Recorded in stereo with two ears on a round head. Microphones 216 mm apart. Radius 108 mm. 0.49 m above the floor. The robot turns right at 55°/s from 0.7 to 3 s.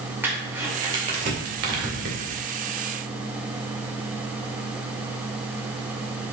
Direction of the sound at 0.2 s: 10° right (ahead or behind).